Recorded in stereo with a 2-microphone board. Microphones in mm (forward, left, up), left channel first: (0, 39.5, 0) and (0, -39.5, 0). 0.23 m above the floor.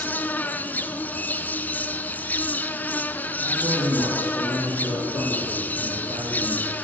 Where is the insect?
25° left (ahead or behind), 1.1 m.